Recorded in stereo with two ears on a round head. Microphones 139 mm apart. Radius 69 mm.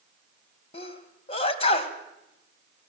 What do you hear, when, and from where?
0.7 s a sneeze: 40° left (ahead or behind), 2.5 m